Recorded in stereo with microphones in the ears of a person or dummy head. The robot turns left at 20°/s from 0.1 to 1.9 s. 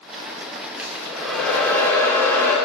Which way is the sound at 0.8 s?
10° right (ahead or behind).